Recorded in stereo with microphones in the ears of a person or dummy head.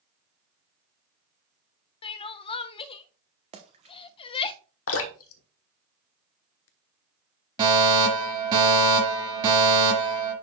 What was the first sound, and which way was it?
Crying, 30° left (ahead or behind).